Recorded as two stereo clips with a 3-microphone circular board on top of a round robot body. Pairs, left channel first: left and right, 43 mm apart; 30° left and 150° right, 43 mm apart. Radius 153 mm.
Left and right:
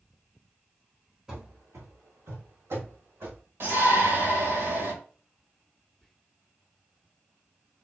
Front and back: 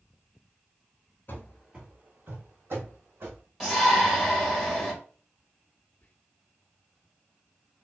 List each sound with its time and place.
1.3 s running footsteps: 15° right, 0.5 m; by 3.4 s 120° right, 2.5 m
3.6 s a shout: 70° right, 2 m
6.0 s whispering: 5° left, 1.0 m